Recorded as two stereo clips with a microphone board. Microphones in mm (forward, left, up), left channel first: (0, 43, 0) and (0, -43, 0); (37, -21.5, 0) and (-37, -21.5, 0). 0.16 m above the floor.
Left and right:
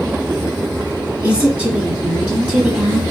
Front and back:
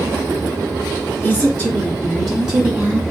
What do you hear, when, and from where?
1.2 s a woman speaking: 25° right, 1.6 m; by 3.0 s 145° right, 1.6 m